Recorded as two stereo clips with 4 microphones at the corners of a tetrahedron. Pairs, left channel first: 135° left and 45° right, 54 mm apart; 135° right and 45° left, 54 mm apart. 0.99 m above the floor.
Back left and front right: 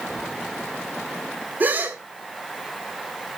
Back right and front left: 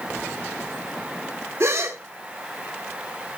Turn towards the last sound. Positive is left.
turn(degrees=10)